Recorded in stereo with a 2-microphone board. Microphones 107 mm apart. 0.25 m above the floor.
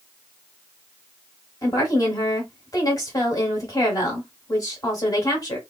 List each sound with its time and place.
1.6 s a woman speaking: 35° left (ahead or behind), 1.3 m